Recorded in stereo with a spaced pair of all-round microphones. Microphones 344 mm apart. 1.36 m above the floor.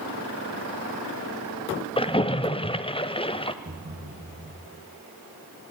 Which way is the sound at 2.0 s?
15° left (ahead or behind).